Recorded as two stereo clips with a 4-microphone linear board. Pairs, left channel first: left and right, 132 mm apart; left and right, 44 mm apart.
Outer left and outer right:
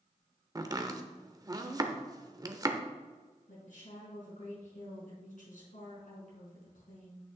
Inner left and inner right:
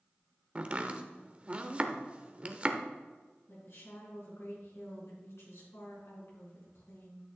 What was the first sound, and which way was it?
Chopping, 30° right (ahead or behind).